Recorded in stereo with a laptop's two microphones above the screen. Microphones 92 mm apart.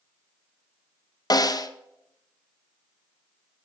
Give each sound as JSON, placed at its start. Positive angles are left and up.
{"t": 1.3, "sound": "a snare drum", "side_deg": 50, "distance_m": 0.6}